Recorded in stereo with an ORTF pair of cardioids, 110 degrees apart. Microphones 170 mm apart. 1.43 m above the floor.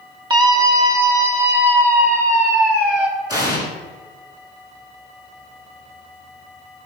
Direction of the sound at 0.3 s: 25° right.